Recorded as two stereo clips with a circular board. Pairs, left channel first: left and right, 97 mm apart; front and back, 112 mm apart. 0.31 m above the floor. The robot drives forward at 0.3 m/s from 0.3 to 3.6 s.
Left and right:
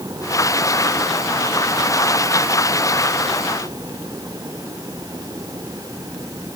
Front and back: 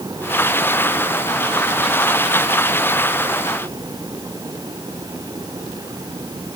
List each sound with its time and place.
Only background noise.